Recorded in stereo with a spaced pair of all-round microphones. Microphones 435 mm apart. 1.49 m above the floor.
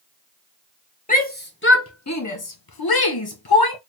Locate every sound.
1.1 s a shout: 20° left (ahead or behind), 1.1 m; by 3.8 s 55° left (ahead or behind), 0.8 m